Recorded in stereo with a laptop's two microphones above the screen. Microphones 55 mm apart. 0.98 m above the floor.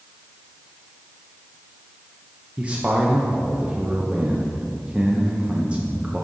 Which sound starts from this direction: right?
A man speaking, at 2.6 s.